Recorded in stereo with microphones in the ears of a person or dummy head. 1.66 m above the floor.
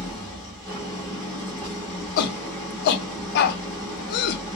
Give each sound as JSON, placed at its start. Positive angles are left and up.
{"t": 0.0, "sound": "an engine running", "side_deg": 5, "distance_m": 1.1}
{"t": 2.2, "sound": "a shout", "side_deg": 55, "distance_m": 0.6}